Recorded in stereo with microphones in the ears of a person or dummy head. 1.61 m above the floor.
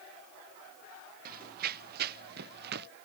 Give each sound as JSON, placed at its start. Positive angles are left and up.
{"t": 1.2, "sound": "running footsteps", "side_deg": -60}